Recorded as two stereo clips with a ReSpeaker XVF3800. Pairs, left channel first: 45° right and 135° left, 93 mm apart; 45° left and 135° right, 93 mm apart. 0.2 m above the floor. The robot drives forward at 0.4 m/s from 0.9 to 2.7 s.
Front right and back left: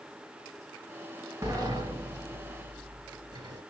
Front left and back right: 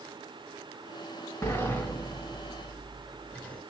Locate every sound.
1.4 s a sliding door: 100° left, 1.7 m; by 3.6 s 115° left, 1.9 m